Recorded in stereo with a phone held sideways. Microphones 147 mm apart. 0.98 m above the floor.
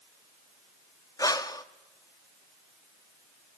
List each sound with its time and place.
1.2 s breathing: 25° left (ahead or behind), 0.6 m